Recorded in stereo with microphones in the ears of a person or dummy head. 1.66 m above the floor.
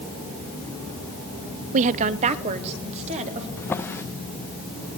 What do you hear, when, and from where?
1.7 s a woman speaking: 45° right (ahead or behind), 0.5 m; by 3.5 s 40° right (ahead or behind), 2.5 m
3.6 s a drawer: 10° left (ahead or behind), 0.8 m